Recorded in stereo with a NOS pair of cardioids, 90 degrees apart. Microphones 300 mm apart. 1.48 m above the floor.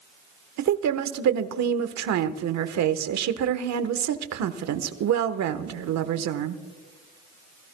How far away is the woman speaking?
About 1.3 m.